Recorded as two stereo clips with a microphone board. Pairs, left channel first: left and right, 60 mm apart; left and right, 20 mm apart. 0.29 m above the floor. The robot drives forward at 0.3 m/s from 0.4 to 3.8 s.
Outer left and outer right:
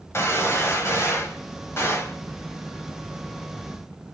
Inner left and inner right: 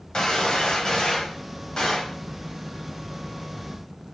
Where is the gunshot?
45° left (ahead or behind), 1.5 m; by 2.2 s 40° left (ahead or behind), 1.6 m.